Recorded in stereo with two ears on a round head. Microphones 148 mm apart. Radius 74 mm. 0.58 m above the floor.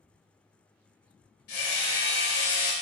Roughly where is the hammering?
Left.